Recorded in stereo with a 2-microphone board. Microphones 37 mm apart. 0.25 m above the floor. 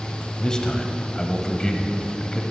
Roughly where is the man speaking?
Left.